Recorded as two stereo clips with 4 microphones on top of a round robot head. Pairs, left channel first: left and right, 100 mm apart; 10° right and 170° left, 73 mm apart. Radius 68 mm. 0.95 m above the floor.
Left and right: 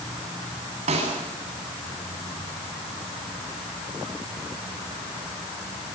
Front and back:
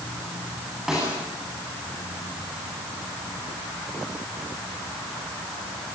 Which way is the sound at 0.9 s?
105° right.